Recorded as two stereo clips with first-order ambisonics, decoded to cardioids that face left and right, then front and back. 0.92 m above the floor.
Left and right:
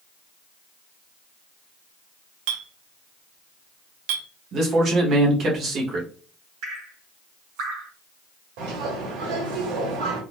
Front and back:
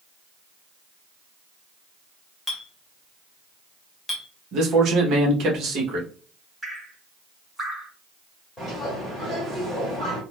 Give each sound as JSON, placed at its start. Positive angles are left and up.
{"t": 2.5, "sound": "a clink", "azimuth_deg": -80, "distance_m": 0.7}
{"t": 4.5, "sound": "a man speaking", "azimuth_deg": -140, "distance_m": 1.1}
{"t": 6.6, "sound": "dripping", "azimuth_deg": -95, "distance_m": 1.8}
{"t": 8.6, "sound": "a bird", "azimuth_deg": -85, "distance_m": 1.7}